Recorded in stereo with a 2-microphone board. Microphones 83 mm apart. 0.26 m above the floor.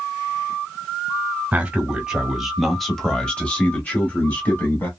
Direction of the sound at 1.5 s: 15° right (ahead or behind).